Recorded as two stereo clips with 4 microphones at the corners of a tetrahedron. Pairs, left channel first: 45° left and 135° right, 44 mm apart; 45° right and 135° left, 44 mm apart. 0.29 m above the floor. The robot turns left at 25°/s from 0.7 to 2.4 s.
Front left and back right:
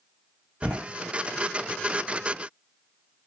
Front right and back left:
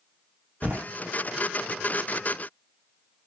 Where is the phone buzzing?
I don't hear a phone buzzing.